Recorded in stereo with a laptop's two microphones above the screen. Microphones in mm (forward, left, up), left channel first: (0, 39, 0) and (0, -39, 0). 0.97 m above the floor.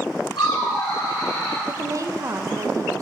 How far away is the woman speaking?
About 0.5 m.